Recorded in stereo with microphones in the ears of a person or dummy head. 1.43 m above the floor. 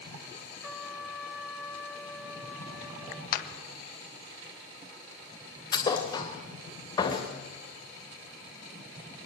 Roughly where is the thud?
Left.